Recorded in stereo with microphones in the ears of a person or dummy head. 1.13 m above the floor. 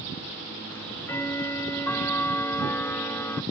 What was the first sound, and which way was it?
Ticking, 10° left (ahead or behind).